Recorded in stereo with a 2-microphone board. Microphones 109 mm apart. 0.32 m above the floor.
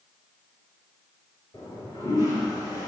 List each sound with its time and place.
1.5 s a toilet flushing: 30° left (ahead or behind), 3.5 m